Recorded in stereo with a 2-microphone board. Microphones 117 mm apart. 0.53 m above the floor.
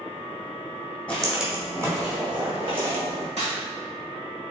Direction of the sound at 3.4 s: 70° right (ahead or behind).